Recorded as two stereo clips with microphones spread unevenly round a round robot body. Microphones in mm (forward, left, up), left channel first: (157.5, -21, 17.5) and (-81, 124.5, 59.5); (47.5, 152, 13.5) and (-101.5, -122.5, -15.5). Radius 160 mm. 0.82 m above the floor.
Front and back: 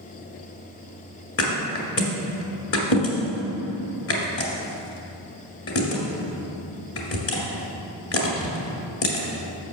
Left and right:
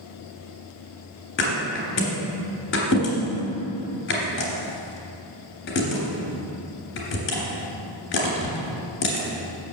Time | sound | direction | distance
1.4 | a thud | 10° left | 2 m